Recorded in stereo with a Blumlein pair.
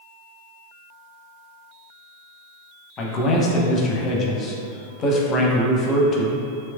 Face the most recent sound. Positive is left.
turn(degrees=30)